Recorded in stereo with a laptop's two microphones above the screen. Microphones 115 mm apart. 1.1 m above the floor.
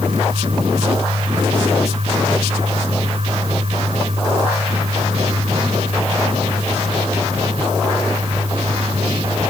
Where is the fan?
60° right (ahead or behind).